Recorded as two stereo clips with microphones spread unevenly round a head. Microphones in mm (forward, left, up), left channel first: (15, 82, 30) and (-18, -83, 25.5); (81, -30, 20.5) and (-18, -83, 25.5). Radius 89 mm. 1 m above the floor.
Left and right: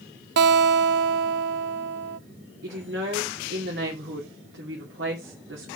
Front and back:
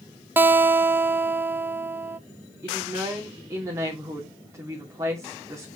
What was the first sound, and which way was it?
A guitar, 80° right.